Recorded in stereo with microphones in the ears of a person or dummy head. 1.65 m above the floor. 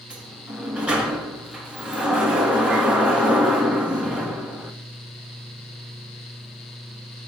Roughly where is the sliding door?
Centre.